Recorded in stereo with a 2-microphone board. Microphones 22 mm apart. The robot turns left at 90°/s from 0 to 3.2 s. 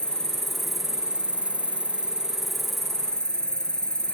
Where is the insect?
60° left, 0.7 m; by 4.2 s 130° left, 0.7 m.